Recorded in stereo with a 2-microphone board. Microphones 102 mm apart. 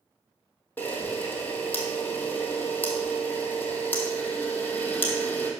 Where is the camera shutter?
15° left (ahead or behind), 1.5 m.